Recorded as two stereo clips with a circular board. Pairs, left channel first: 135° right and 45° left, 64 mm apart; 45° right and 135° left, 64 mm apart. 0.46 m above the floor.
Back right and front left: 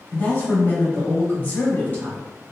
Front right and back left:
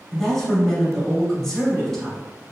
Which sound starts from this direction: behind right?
A woman speaking, at 0.1 s.